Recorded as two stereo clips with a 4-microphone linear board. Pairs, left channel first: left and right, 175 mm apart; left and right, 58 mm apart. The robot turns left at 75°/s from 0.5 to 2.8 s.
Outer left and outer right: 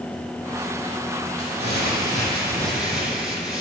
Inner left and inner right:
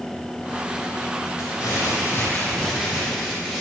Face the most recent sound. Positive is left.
turn(degrees=-5)